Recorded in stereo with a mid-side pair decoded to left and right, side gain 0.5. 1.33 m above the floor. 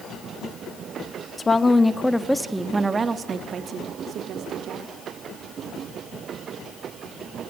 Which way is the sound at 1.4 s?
25° left.